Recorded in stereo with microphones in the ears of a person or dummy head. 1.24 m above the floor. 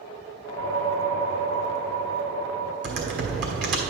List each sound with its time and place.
0.5 s a whoosh: 60° right (ahead or behind), 1.3 m
2.8 s typing on a keyboard: 50° right (ahead or behind), 1.4 m